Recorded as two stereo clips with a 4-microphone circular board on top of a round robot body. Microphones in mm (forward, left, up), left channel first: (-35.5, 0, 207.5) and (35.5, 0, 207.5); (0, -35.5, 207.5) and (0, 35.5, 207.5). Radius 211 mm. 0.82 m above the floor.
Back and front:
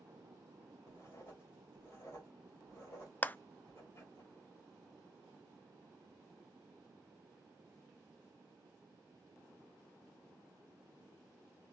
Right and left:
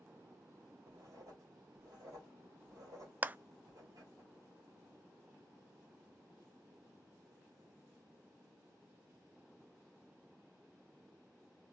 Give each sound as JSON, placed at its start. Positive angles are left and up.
{"t": 0.9, "sound": "writing", "azimuth_deg": 130, "distance_m": 2.5}
{"t": 3.2, "sound": "a clap", "azimuth_deg": 135, "distance_m": 0.5}